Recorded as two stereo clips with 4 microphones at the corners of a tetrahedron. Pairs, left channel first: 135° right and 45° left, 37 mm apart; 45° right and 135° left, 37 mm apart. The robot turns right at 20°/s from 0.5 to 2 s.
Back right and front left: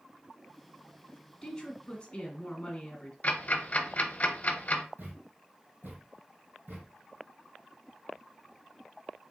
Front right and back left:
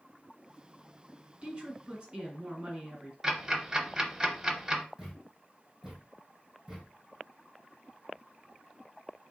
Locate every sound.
1.4 s a woman speaking: 160° left, 1.3 m; by 3.1 s 175° left, 1.3 m
3.2 s ticking: 160° right, 0.7 m
5.0 s a thud: 60° left, 2.0 m